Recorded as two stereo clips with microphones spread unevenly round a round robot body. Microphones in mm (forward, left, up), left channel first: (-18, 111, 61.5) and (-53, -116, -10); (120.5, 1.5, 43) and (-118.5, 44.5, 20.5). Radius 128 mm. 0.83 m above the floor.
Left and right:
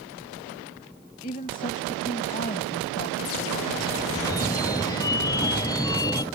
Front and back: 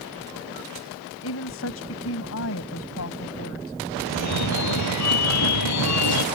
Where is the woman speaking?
20° left.